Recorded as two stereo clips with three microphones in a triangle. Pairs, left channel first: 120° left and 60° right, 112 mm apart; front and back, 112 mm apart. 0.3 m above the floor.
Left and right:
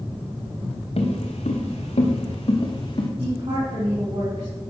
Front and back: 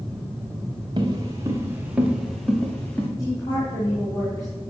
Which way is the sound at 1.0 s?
135° left.